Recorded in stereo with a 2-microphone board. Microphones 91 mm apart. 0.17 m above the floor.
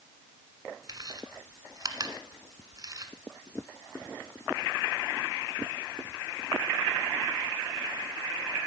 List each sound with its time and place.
0.9 s chewing: 45° right (ahead or behind), 1.4 m